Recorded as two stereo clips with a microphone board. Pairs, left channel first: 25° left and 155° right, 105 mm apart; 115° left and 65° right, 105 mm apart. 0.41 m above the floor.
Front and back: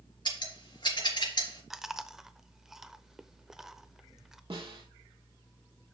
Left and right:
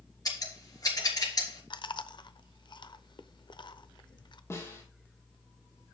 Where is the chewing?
120° left, 0.6 m.